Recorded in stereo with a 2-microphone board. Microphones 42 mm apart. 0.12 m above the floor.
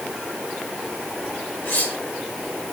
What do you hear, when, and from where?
1.6 s cutlery clinking: 65° left (ahead or behind), 5 m